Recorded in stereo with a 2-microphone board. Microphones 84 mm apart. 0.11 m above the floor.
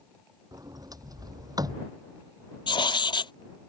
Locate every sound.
0.5 s a sliding door: 50° right (ahead or behind)
2.7 s writing: 75° left (ahead or behind)